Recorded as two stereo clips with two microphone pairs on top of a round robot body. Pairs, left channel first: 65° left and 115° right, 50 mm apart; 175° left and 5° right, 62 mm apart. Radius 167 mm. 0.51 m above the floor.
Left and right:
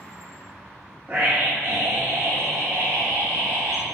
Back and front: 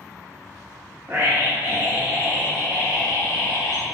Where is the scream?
55° right, 1.4 m; by 3.9 s 105° right, 2 m.